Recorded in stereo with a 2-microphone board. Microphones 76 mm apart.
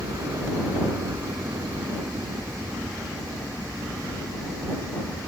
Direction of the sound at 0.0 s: 45° right (ahead or behind).